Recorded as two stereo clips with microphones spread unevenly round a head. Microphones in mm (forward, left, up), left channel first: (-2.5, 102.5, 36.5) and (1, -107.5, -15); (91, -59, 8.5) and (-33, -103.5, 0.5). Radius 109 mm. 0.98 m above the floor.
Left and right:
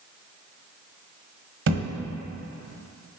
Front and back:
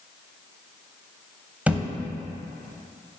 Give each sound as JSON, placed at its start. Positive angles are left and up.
{"t": 1.7, "sound": "a thud", "azimuth_deg": -85, "distance_m": 0.9}